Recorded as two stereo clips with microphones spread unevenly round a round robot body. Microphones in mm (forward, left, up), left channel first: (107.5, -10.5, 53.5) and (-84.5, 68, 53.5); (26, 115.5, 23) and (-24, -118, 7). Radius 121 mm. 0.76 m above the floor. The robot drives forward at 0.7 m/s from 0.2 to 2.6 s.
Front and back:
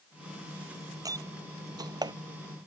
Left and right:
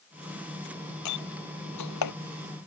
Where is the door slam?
85° left; by 2.1 s 90° left.